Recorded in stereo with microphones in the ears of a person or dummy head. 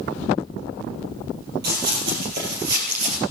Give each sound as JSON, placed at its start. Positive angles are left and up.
{"t": 1.6, "sound": "running footsteps", "side_deg": -60, "distance_m": 3.0}